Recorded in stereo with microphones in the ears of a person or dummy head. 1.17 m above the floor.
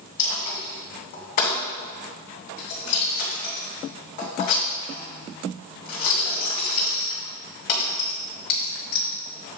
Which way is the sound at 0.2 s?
55° left (ahead or behind).